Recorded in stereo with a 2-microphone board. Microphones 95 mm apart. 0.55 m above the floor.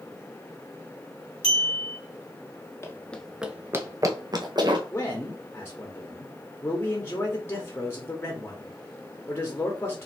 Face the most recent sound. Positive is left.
turn(degrees=25)  # may be behind; listen again after turning